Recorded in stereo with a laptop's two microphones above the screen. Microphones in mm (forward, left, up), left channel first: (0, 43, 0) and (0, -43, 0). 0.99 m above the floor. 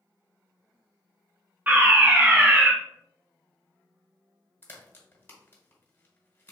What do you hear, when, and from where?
1.7 s a fire alarm: 20° right (ahead or behind), 1.3 m
4.6 s a crack: 25° left (ahead or behind), 1.3 m